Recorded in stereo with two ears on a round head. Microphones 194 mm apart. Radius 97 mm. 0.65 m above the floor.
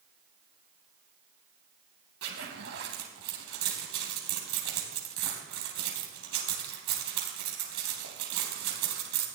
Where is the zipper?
50° right (ahead or behind), 3 m.